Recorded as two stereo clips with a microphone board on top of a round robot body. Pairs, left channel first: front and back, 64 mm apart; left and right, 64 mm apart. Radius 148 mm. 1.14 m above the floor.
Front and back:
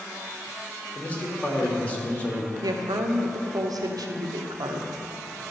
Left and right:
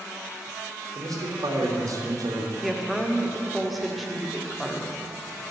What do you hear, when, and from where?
0.9 s a man speaking: 70° right, 1.9 m
2.6 s a woman speaking: straight behind, 1.1 m